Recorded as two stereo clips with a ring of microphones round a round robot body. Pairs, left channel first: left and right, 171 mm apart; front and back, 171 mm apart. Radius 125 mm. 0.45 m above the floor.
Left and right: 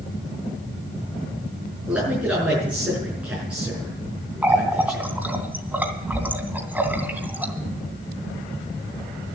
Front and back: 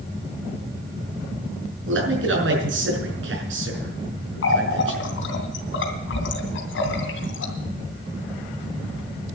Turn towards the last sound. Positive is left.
turn(degrees=-10)